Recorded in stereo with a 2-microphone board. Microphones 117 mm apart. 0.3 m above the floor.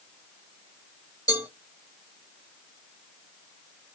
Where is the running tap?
I don't hear a running tap.